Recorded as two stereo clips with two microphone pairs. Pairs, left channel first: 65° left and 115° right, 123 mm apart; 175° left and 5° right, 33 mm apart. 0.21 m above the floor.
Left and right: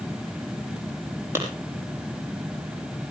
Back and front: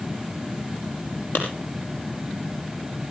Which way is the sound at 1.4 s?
175° left.